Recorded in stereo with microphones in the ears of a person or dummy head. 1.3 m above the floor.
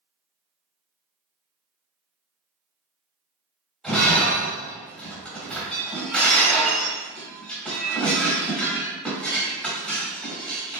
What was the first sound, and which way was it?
Breaking glass, centre (ahead or behind).